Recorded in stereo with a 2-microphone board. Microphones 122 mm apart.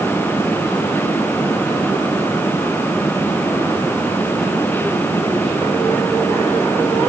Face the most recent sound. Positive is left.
No sound to turn to.